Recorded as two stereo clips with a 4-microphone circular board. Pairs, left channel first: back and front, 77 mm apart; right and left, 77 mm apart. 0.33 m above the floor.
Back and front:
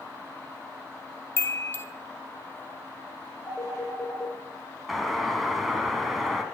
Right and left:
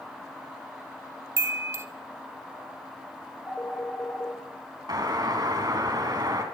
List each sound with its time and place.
1.4 s a chime: 130° left, 1.9 m
3.5 s a phone ringing: 145° right, 5 m
4.9 s a doorbell: 90° left, 3.5 m